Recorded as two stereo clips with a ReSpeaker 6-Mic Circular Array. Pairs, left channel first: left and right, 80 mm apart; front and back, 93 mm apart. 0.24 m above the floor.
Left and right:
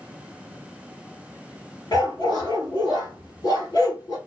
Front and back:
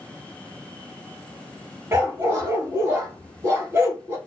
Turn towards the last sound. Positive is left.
turn(degrees=120)